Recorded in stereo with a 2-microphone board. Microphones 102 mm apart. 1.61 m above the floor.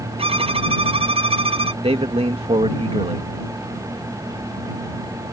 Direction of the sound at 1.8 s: 75° right (ahead or behind).